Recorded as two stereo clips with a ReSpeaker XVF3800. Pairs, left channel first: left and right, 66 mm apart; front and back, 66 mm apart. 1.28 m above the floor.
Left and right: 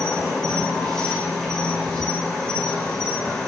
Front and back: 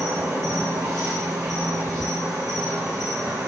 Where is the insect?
165° left, 2.5 m.